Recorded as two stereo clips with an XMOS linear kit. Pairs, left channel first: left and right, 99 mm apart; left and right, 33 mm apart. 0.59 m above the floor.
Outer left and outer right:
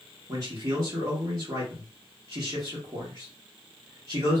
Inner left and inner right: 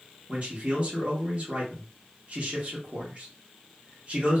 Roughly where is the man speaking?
Right.